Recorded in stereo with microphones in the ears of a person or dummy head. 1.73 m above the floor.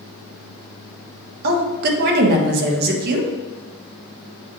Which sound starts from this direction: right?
A woman speaking, at 1.4 s.